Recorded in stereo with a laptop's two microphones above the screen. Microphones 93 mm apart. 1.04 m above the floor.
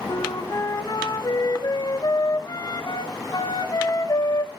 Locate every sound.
0.1 s a flute: 45° left (ahead or behind), 1.3 m